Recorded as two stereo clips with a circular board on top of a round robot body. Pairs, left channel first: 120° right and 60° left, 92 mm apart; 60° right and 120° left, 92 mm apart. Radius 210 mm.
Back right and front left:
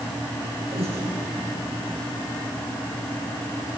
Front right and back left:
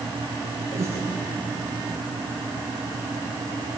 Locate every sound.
0.7 s breathing: 60° left, 8.5 m